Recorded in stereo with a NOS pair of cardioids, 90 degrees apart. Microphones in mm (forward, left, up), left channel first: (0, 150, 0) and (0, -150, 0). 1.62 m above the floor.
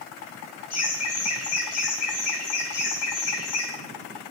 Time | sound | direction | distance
0.7 | laughter | 60° left | 4 m